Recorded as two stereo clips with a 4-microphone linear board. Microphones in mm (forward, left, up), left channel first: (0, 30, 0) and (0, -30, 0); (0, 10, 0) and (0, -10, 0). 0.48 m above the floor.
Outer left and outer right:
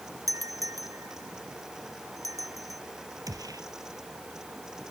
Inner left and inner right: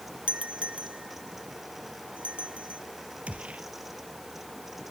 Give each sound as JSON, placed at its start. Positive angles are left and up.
{"t": 0.3, "sound": "a doorbell", "side_deg": -70}
{"t": 3.3, "sound": "a gunshot", "side_deg": -85}